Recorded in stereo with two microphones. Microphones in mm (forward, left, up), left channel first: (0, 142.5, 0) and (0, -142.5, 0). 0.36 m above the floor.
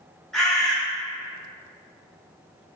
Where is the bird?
Centre (ahead or behind), 1.1 m.